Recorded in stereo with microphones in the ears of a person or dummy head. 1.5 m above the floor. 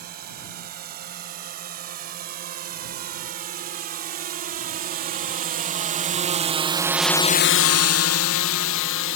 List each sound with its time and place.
0.0 s a drone: 50° right (ahead or behind); by 9.2 s 65° left (ahead or behind)